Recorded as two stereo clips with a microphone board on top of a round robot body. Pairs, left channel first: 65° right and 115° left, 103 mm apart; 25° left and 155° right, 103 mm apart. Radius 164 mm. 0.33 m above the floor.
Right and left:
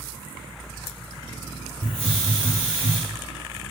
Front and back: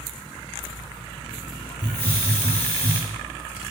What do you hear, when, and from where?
1.8 s a hiss: 100° left, 1.7 m